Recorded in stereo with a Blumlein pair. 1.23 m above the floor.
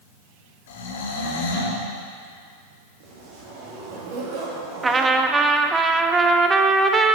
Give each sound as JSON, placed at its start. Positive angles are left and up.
{"t": 0.7, "sound": "snoring", "azimuth_deg": 55, "distance_m": 1.6}
{"t": 3.0, "sound": "a zipper", "azimuth_deg": -50, "distance_m": 2.5}
{"t": 4.8, "sound": "a trumpet", "azimuth_deg": -15, "distance_m": 0.7}